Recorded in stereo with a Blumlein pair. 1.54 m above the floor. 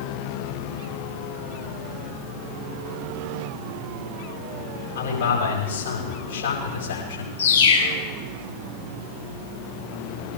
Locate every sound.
5.0 s a man speaking: 60° left, 9 m
7.4 s a bird: 60° left, 7 m